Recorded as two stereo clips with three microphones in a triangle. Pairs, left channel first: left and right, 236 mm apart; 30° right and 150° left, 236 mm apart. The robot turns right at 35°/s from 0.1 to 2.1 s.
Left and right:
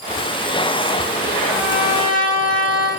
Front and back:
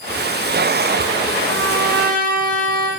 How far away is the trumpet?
About 9 m.